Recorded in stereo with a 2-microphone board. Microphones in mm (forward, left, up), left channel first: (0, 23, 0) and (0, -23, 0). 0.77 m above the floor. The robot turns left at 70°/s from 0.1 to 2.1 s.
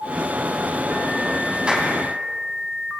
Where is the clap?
20° right (ahead or behind), 6 m; by 1.9 s centre (ahead or behind), 6 m.